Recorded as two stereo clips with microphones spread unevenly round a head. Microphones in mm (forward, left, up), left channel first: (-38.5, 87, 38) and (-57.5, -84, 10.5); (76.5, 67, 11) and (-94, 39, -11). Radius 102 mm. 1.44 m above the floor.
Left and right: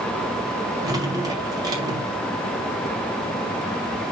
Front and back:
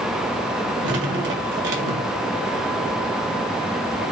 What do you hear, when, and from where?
0.8 s dripping: 170° right, 2.0 m